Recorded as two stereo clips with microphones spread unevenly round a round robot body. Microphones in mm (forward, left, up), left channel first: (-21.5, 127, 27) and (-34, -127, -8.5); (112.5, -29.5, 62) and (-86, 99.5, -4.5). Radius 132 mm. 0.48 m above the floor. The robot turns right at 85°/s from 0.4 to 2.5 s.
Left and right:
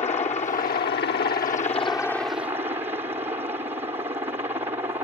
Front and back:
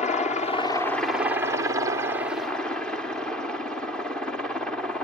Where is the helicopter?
35° left; by 5.0 s 150° right.